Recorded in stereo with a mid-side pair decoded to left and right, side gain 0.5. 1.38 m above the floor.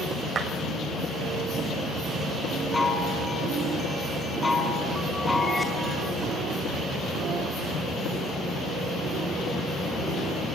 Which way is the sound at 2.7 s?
15° left.